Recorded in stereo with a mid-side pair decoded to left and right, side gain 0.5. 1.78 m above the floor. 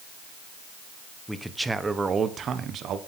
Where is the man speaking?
Straight ahead, 1.7 m; by 3.0 s 70° right, 1.6 m.